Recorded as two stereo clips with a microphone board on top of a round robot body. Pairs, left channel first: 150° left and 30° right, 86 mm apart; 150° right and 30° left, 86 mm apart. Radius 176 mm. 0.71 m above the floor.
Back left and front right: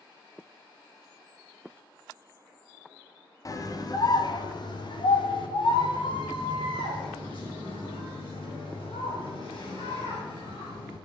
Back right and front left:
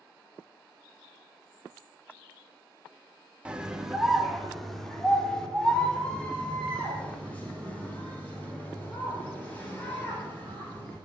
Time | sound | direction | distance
3.5 | a scream | 105° left | 1.9 m